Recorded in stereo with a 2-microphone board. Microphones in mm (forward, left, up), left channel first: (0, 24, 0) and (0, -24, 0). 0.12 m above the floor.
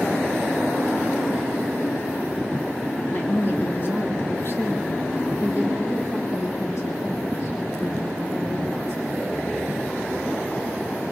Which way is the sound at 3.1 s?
30° left (ahead or behind).